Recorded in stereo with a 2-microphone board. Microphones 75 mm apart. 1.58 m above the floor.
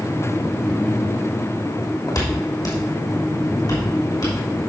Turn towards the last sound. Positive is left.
turn(degrees=65)  # may be behind; listen again after turning